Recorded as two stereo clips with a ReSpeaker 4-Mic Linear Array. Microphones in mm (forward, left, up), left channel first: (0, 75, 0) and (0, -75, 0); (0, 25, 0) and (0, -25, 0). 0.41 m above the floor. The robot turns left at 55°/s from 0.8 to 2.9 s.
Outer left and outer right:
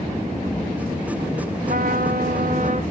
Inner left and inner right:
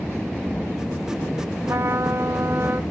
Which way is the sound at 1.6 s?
60° right.